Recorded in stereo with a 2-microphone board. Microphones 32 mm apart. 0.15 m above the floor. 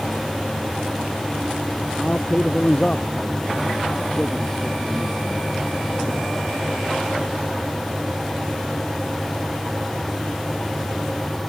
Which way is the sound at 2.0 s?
35° left (ahead or behind).